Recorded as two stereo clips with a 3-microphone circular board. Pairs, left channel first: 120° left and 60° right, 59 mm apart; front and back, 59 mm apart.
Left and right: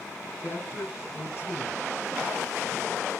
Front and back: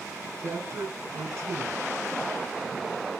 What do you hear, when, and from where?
0.4 s a man speaking: 155° left, 2.5 m